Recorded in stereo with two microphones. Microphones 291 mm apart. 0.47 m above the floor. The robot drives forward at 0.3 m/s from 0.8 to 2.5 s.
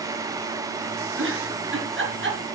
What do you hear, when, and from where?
1.2 s a giggle: 45° right (ahead or behind), 3.5 m; by 2.4 s 40° right (ahead or behind), 4 m